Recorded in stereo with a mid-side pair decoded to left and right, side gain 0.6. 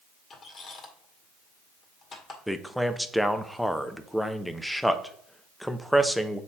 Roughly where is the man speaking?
Ahead.